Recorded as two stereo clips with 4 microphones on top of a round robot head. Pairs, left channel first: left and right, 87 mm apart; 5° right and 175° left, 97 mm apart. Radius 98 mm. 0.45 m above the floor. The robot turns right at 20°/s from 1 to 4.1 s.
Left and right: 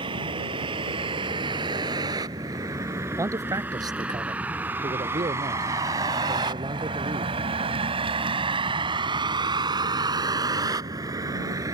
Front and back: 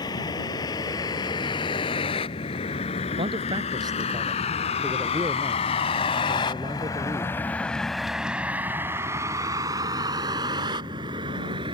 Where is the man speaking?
145° right; by 7.3 s 125° right.